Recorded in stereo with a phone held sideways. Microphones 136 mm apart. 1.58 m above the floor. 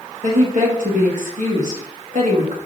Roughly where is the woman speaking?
Right.